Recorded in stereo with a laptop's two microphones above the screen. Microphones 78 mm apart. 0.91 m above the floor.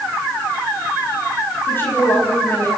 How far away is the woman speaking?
About 6 m.